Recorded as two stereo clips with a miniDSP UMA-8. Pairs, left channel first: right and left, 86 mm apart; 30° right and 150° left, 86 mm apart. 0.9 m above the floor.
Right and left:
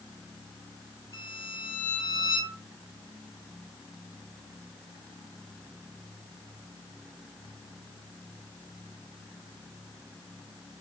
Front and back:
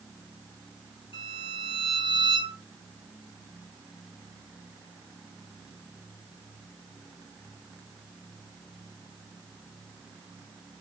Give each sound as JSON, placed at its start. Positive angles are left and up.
{"t": 1.1, "sound": "a violin", "azimuth_deg": -40, "distance_m": 2.5}